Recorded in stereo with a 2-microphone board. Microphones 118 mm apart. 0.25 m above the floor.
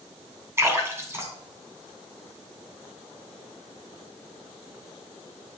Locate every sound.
0.6 s a splash: 25° right (ahead or behind), 2.5 m